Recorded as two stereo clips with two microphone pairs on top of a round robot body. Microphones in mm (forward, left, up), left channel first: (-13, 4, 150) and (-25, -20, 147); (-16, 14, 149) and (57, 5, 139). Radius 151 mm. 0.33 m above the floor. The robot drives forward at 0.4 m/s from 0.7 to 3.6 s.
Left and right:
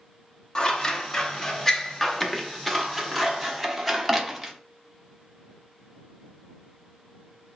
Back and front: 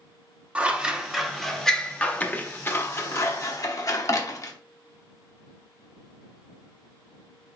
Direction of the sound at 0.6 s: 20° left.